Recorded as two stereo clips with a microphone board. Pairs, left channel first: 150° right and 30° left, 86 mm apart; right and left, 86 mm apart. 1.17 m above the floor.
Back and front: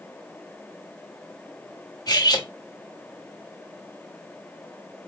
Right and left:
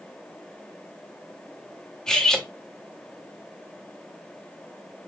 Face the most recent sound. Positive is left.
turn(degrees=-170)